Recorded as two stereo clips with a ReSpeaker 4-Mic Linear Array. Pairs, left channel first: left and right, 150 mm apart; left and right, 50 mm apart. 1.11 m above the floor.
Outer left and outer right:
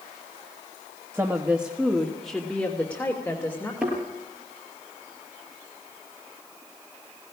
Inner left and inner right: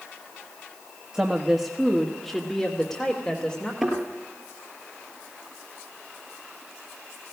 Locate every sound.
1.1 s a woman speaking: 15° right (ahead or behind), 1.4 m; by 3.7 s 15° left (ahead or behind), 3 m
3.8 s a thud: 5° right (ahead or behind), 6.5 m